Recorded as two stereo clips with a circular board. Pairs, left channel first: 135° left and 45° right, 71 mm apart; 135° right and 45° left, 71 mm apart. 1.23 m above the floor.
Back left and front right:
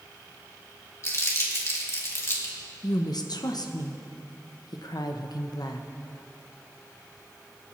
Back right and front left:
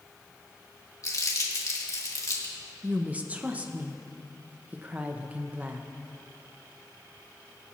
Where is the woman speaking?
115° left, 0.7 m.